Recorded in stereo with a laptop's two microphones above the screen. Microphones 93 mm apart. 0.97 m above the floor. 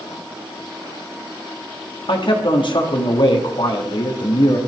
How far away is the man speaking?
About 2 m.